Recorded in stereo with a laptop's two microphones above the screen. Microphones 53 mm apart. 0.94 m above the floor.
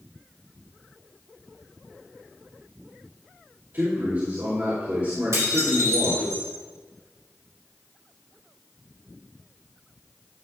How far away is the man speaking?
About 2.5 m.